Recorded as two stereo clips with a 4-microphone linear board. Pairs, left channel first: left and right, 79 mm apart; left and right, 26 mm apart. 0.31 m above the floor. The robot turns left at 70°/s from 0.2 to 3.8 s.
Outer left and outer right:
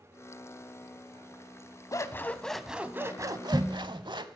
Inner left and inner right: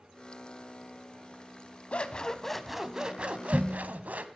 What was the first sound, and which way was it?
Scissors, 50° left.